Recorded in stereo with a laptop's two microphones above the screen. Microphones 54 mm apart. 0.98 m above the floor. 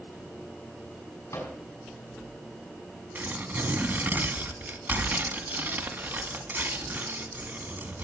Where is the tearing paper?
45° right (ahead or behind), 1.9 m.